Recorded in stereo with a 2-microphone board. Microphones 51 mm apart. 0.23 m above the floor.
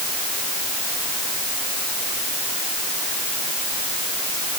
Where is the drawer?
I don't hear a drawer.